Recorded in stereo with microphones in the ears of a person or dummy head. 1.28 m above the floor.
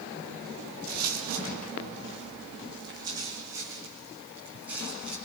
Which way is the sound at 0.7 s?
55° right (ahead or behind).